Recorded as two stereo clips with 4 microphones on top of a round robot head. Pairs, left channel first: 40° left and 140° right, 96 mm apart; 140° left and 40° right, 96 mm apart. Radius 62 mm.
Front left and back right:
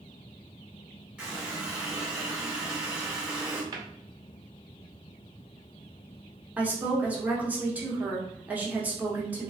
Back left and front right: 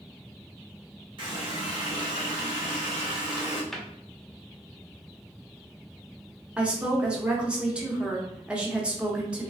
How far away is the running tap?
About 1.5 m.